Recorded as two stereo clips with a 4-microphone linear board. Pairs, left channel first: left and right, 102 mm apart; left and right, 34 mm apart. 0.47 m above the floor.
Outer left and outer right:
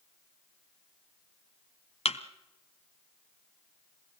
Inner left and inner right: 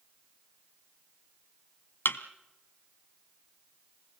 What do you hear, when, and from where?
2.0 s a thud: 80° left, 1.2 m